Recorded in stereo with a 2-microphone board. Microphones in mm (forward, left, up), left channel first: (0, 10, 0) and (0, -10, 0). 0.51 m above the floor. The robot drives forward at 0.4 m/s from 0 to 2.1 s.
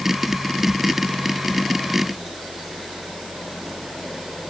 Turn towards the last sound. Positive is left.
No sound to turn to.